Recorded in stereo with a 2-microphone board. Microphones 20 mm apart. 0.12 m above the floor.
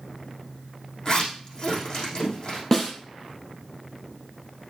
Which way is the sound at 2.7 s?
15° left (ahead or behind).